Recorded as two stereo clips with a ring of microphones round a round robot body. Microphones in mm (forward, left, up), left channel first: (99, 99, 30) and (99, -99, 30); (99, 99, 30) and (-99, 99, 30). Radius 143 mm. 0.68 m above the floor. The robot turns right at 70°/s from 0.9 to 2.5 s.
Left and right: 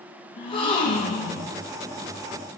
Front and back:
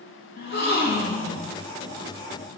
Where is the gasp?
25° left, 2.5 m; by 1.5 s 70° left, 2.5 m.